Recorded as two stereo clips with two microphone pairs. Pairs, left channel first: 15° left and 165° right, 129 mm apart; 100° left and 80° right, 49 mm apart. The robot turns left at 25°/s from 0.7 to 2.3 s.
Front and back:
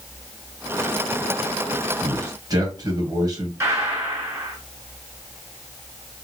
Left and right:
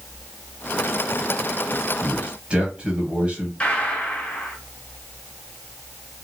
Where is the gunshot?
150° left, 1.7 m.